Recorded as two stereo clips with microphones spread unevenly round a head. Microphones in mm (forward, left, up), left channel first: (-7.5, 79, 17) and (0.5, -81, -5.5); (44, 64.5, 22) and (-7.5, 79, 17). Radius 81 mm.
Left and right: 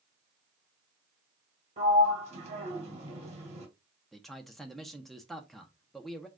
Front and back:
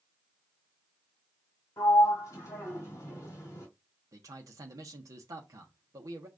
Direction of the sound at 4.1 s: 175° right.